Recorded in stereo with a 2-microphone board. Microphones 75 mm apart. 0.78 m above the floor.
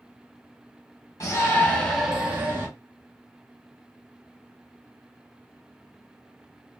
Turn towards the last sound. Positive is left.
turn(degrees=-35)  # may be behind; listen again after turning